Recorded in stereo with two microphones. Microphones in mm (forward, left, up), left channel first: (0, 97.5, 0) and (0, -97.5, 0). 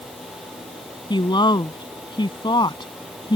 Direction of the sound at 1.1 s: 25° left (ahead or behind).